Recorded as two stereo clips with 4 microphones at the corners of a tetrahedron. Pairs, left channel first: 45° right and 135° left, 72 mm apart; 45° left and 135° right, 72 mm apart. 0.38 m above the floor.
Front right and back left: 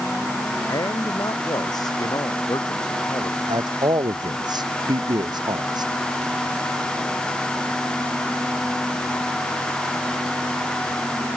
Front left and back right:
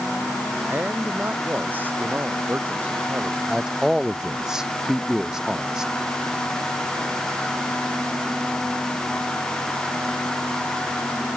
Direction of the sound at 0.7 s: 70° right.